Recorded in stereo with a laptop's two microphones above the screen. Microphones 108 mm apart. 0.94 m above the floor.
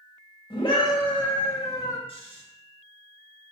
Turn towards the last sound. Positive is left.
turn(degrees=55)  # may be behind; listen again after turning